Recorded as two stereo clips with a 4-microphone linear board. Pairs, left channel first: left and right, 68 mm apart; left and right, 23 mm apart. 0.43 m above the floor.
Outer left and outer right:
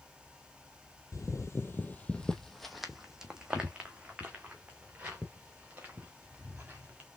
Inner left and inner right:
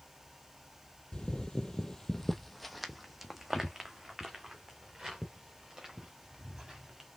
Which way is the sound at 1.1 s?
55° left (ahead or behind).